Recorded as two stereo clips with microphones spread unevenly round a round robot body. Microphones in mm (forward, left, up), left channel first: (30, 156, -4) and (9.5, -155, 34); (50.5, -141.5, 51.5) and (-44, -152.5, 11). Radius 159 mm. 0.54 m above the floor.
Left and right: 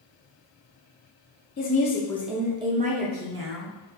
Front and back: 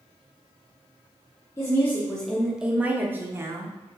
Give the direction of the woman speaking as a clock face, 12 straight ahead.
9 o'clock.